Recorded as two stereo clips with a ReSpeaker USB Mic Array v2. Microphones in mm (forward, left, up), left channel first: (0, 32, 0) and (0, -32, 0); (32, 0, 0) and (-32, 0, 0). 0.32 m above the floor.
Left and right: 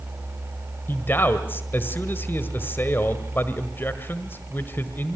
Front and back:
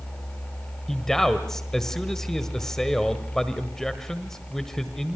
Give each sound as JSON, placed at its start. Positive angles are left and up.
{"t": 0.9, "sound": "a man speaking", "azimuth_deg": 75, "distance_m": 1.5}